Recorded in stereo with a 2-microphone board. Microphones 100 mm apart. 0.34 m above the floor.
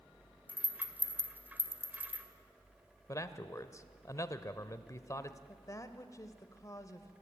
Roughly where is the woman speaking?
Left.